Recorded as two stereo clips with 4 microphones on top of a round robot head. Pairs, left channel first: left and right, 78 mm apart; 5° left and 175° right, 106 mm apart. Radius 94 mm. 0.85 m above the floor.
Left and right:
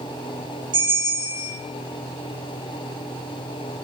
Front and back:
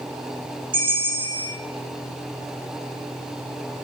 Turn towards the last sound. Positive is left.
turn(degrees=-125)